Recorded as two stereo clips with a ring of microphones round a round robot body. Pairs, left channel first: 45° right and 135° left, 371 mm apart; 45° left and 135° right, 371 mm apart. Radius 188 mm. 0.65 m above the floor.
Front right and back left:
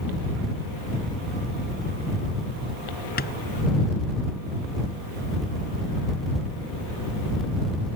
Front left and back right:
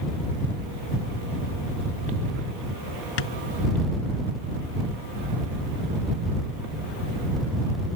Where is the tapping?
20° left.